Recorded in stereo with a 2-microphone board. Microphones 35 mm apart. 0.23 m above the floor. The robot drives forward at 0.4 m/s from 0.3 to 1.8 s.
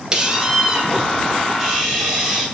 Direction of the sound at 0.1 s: 25° right (ahead or behind).